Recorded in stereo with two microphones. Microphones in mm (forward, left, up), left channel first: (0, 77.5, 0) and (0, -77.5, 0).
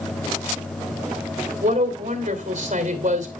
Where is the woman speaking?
55° right (ahead or behind), 2.5 m.